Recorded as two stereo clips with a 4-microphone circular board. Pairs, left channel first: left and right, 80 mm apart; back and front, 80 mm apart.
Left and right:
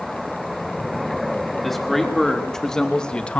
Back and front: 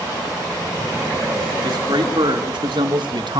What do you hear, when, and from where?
1.6 s a man speaking: straight ahead, 4 m; by 3.4 s 15° left, 1.6 m